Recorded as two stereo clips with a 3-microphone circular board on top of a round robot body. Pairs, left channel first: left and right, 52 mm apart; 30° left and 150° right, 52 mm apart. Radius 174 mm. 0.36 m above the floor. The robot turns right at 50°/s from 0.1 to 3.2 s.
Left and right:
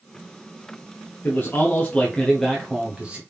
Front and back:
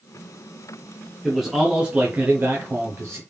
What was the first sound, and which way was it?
A man speaking, 115° left.